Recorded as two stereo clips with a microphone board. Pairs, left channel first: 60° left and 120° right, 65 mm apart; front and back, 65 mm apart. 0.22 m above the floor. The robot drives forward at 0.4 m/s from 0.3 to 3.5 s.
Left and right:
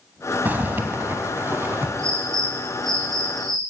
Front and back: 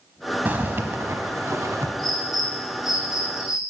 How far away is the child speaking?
No child speaking in this recording.